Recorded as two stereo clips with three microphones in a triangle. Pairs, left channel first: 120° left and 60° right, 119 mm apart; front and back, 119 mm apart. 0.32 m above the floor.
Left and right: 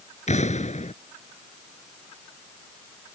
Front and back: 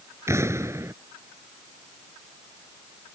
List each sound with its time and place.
0.3 s an explosion: 115° left